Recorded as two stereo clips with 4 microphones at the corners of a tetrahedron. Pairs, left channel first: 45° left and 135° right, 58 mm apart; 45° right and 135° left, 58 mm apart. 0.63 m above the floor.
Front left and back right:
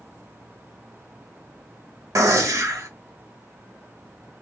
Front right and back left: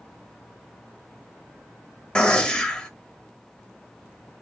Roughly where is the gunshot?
Behind right.